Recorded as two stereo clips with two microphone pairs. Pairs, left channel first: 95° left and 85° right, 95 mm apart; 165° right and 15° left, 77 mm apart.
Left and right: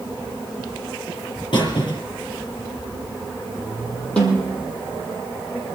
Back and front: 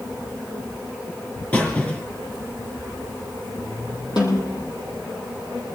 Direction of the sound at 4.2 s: 170° left.